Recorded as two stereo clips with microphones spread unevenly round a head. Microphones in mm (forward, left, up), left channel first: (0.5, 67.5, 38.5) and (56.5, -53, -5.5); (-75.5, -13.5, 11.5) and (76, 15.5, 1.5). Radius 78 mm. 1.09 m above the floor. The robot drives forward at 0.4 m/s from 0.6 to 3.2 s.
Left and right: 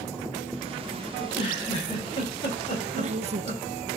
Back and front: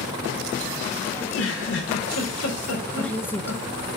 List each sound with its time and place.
1.2 s a giggle: 175° left, 2.5 m; by 3.6 s straight behind, 3 m
2.9 s a woman speaking: 80° right, 0.7 m; by 3.6 s 90° right, 0.7 m